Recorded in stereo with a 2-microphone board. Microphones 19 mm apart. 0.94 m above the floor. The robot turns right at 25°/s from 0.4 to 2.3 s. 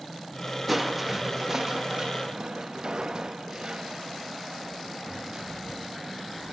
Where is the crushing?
175° right, 1.2 m; by 6.5 s 135° right, 1.2 m.